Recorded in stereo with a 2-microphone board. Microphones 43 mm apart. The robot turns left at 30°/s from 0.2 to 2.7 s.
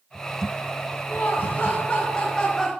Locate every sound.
1.1 s laughter: 60° left, 1.2 m; by 2.7 s 15° left, 1.2 m